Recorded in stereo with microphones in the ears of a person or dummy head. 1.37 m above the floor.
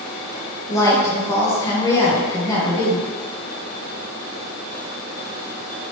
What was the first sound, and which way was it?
A woman speaking, 25° left (ahead or behind).